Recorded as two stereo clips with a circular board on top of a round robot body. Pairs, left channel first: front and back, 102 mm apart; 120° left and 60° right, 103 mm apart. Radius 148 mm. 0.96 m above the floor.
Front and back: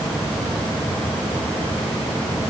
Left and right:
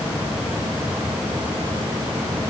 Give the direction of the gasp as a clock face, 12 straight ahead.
I don't hear a gasp.